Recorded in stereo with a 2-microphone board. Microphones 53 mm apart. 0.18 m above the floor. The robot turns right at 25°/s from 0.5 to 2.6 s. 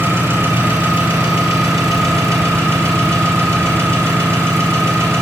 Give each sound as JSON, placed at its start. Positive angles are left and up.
{"t": 0.0, "sound": "an engine running", "azimuth_deg": -115, "distance_m": 3.0}